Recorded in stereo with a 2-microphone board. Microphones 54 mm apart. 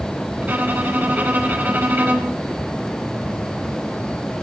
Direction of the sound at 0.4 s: 40° right (ahead or behind).